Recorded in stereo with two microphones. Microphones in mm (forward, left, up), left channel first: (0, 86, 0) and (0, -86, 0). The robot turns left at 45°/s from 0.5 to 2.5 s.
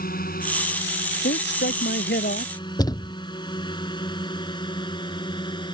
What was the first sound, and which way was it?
A drone, 55° left (ahead or behind).